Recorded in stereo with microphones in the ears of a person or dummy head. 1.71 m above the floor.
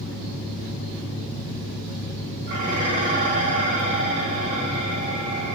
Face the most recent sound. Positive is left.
turn(degrees=-55)  # may be behind; listen again after turning